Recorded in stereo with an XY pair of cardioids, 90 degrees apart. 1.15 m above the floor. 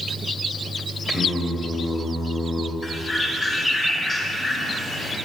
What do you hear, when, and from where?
1.1 s singing: 25° left, 2 m
2.8 s a bird: 40° left, 3.5 m